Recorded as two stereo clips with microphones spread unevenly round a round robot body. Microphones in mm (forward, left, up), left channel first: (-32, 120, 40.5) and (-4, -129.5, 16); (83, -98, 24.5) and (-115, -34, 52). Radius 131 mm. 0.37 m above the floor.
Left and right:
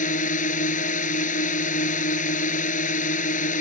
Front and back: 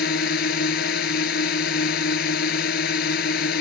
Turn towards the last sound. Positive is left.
turn(degrees=35)